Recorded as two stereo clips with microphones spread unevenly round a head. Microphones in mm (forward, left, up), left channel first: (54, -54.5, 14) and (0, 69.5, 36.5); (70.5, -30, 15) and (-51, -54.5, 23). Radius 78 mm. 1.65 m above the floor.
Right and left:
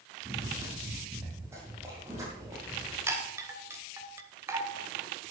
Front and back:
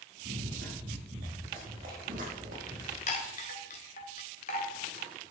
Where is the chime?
50° left, 2 m.